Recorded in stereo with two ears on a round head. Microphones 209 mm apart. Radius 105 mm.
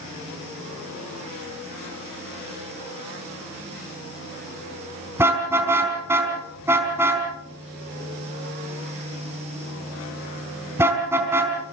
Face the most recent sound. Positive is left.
turn(degrees=-10)  # may be behind; listen again after turning